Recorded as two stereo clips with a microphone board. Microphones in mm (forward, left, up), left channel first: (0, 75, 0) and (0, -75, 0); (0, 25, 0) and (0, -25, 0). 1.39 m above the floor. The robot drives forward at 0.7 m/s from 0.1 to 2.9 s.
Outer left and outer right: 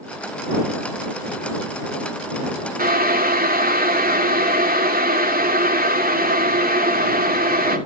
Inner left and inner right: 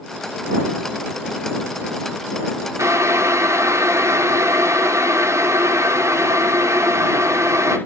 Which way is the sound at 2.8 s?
80° right.